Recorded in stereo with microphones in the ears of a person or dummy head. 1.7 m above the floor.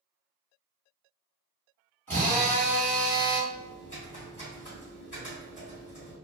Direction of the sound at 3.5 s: 15° left (ahead or behind).